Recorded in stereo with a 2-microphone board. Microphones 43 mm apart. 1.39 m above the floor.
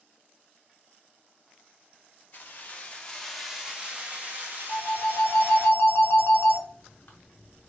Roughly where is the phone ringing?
Left.